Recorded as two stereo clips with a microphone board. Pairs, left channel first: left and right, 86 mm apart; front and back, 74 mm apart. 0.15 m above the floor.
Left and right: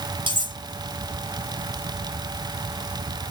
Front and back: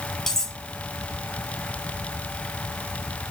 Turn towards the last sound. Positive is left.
turn(degrees=-80)